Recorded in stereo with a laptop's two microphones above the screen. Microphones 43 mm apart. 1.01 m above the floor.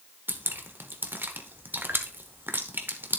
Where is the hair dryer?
No hair dryer in this recording.